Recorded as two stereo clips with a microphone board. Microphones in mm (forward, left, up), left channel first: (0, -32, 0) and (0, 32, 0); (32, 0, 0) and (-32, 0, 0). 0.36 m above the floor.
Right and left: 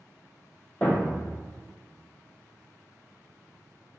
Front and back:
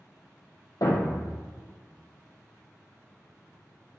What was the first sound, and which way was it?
A thud, 25° right.